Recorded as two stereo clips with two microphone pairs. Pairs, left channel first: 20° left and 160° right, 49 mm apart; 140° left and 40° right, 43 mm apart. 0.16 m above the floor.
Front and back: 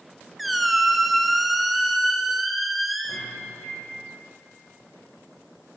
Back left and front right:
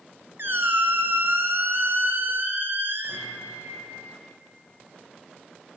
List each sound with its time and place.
0.4 s a squeak: 70° right, 0.7 m
3.1 s a microwave: 5° right, 4 m